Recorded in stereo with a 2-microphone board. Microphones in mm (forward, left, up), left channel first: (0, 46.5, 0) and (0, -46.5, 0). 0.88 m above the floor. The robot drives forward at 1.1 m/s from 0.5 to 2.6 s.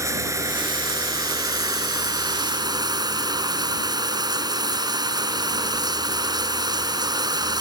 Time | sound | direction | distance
0.0 | running water | 35° right (ahead or behind) | ?